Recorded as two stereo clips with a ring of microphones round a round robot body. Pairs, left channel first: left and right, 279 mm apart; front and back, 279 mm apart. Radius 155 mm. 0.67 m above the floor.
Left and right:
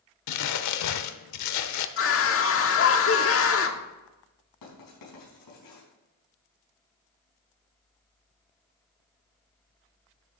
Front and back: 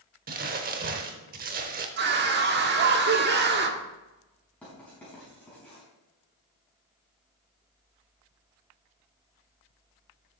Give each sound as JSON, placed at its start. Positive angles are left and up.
{"t": 0.3, "sound": "crumpling", "azimuth_deg": 115, "distance_m": 0.8}
{"t": 2.0, "sound": "a scream", "azimuth_deg": 125, "distance_m": 1.3}
{"t": 4.6, "sound": "writing", "azimuth_deg": 85, "distance_m": 5.0}